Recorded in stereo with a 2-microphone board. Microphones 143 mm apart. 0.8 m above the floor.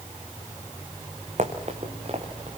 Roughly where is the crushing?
I don't hear crushing.